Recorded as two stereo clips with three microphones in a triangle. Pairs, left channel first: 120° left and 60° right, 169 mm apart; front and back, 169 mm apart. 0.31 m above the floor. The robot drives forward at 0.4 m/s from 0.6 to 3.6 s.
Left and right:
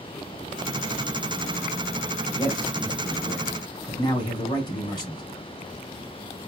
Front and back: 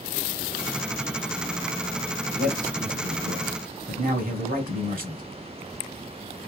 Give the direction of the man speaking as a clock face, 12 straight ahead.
6 o'clock.